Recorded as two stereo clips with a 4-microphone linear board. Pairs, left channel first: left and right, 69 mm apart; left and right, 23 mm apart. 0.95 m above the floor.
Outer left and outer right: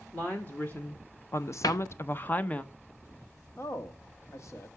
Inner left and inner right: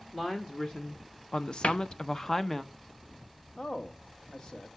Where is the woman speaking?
25° left (ahead or behind), 1.2 m; by 2.6 s 20° left (ahead or behind), 0.8 m.